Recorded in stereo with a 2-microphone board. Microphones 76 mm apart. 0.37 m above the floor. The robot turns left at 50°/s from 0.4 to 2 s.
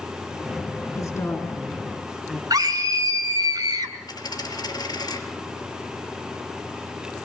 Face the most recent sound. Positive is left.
turn(degrees=60)  # may be behind; listen again after turning